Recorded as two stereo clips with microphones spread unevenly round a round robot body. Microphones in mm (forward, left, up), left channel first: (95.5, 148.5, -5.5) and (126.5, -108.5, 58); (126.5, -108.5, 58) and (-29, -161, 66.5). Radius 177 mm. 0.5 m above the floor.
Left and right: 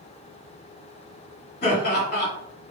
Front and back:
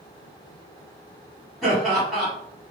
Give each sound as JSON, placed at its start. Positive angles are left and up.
{"t": 1.6, "sound": "laughter", "azimuth_deg": 105, "distance_m": 1.5}